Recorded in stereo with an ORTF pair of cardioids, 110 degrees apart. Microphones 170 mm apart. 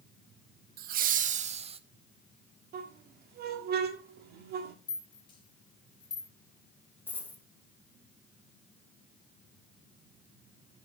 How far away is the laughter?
About 1.0 m.